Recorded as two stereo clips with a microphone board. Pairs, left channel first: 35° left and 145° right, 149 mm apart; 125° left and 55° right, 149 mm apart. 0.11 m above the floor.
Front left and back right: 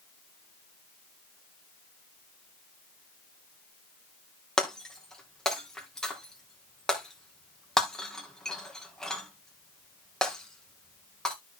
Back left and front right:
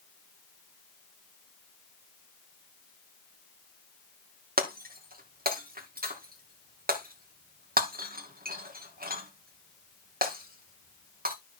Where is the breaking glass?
50° right, 2.5 m.